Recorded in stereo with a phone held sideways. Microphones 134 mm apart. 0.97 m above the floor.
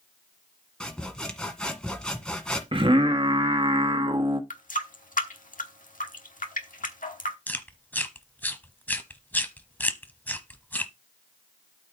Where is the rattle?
I don't hear a rattle.